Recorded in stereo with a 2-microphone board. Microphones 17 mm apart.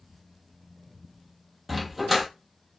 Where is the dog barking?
10° right (ahead or behind), 1.1 m.